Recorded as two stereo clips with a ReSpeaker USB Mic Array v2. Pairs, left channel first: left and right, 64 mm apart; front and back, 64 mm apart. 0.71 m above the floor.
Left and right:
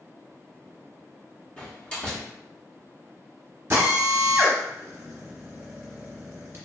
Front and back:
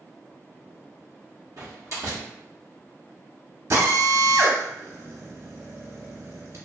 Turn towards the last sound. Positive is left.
turn(degrees=-140)